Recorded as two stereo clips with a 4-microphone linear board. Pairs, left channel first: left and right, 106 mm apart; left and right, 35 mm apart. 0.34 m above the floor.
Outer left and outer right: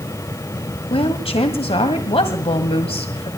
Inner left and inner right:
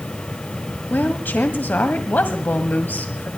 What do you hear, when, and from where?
0.9 s a woman speaking: 60° left (ahead or behind), 1.7 m